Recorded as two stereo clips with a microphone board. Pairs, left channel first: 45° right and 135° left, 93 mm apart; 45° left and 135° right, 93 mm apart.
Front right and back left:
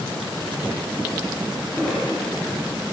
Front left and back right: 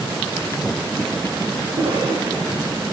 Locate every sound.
1.7 s a cough: 130° right, 9.5 m